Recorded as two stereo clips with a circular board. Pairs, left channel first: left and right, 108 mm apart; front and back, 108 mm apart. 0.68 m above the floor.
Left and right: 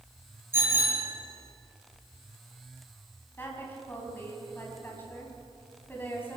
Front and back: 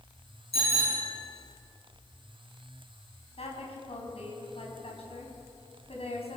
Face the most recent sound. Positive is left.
turn(degrees=20)